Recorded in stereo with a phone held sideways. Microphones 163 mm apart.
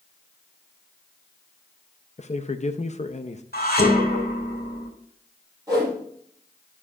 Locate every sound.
2.2 s a man speaking: 45° left (ahead or behind), 0.6 m
3.5 s dishes clattering: 85° left, 3 m
5.7 s a whoosh: 20° right (ahead or behind), 4.5 m